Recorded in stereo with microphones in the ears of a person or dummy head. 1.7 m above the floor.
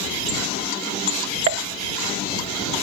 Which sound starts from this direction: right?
A pop, at 1.5 s.